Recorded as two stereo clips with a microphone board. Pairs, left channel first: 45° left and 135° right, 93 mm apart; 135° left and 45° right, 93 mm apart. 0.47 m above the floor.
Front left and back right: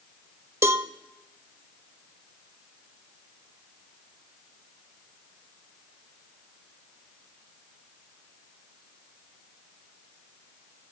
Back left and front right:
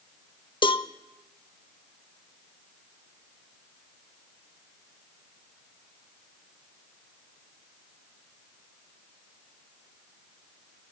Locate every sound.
0.6 s a cowbell: 165° left, 0.6 m